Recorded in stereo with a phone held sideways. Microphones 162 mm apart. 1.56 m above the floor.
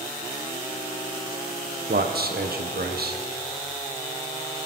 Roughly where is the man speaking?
Right.